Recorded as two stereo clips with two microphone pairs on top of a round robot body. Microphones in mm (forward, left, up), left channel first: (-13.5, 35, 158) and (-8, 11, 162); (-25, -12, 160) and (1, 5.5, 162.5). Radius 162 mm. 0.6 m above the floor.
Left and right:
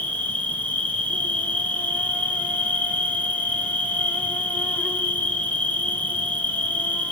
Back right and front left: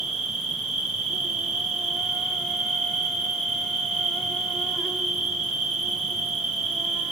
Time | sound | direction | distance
0.0 | an insect | 105° left | 3 m